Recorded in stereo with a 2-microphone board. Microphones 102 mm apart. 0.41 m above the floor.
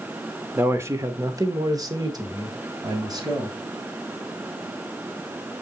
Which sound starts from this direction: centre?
A man speaking, at 0.6 s.